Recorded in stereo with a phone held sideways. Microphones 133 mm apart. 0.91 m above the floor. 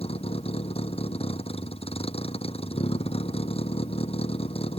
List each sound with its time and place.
0.0 s a vehicle: 50° left (ahead or behind)